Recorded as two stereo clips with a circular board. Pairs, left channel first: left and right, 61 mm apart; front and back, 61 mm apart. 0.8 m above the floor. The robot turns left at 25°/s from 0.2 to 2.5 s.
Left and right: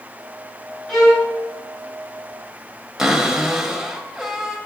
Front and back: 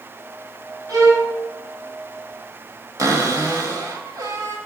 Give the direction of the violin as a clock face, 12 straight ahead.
6 o'clock.